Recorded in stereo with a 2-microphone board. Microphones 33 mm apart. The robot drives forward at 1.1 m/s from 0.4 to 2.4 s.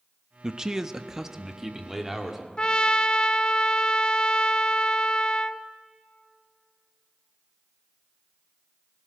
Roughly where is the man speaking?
Centre.